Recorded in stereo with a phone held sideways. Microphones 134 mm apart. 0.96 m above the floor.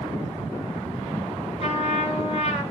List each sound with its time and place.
1.6 s a trumpet: 50° left (ahead or behind), 6.5 m